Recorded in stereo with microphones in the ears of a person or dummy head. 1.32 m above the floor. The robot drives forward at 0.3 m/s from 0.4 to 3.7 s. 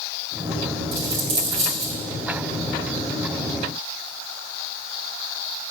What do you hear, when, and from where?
0.9 s a dropped coin: 55° right (ahead or behind), 1.6 m; by 1.9 s 60° right (ahead or behind), 1.5 m